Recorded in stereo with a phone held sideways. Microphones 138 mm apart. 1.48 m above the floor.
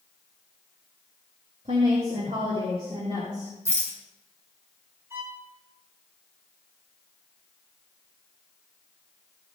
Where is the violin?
20° right (ahead or behind), 1.9 m.